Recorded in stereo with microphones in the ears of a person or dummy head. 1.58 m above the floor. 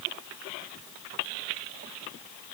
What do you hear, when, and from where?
Only background noise.